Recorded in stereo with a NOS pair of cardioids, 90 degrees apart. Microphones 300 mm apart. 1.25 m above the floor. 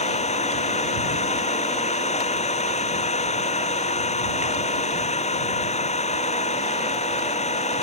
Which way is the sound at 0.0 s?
20° left.